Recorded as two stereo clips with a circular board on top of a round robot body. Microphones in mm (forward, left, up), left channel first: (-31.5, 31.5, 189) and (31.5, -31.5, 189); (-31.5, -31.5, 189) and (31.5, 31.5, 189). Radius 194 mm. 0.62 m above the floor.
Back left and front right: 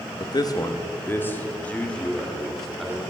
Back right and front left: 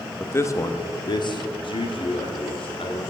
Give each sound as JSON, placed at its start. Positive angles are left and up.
{"t": 0.2, "sound": "a man speaking", "azimuth_deg": 160, "distance_m": 1.2}